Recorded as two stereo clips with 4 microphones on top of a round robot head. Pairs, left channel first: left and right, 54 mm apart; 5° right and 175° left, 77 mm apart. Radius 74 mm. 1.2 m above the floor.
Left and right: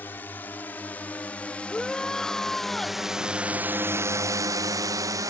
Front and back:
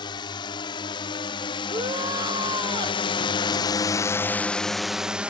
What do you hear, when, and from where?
0.0 s a drone: 25° left; by 5.3 s 105° right
1.7 s a shout: 170° left